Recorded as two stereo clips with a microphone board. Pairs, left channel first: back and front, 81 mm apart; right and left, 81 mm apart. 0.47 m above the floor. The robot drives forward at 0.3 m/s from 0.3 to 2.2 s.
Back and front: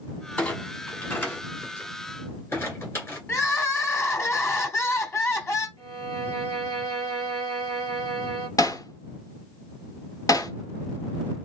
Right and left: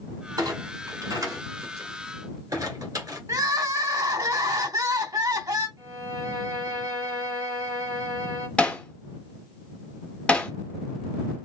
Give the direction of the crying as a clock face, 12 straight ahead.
8 o'clock.